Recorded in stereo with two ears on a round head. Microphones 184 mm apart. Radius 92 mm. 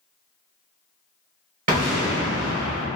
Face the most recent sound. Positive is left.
turn(degrees=-40)  # may be behind; listen again after turning